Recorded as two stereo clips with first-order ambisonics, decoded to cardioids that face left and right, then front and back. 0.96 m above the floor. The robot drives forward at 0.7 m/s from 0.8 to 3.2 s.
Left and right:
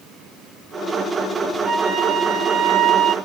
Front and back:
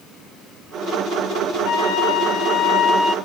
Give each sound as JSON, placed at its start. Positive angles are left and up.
{"t": 1.6, "sound": "a flute", "azimuth_deg": -25, "distance_m": 1.3}